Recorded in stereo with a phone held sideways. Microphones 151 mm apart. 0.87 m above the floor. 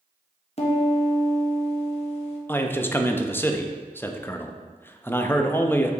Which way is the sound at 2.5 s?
15° left (ahead or behind).